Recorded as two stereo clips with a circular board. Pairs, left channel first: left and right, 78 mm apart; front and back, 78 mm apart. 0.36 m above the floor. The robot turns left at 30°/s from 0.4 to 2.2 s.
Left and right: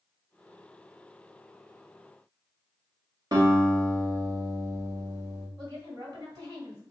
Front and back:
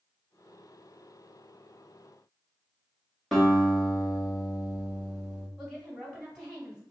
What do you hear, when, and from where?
3.3 s a guitar: 85° right, 1.3 m
5.6 s a woman speaking: 90° right, 2 m